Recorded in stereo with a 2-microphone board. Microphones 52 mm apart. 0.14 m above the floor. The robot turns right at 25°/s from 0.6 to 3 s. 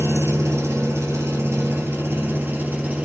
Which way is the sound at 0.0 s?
90° right.